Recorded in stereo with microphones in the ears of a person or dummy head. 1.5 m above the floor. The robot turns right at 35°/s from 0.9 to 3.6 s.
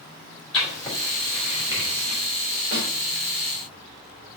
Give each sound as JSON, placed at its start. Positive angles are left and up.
{"t": 0.5, "sound": "writing", "side_deg": 10, "distance_m": 3.0}
{"t": 2.7, "sound": "a snare drum", "side_deg": -80, "distance_m": 4.0}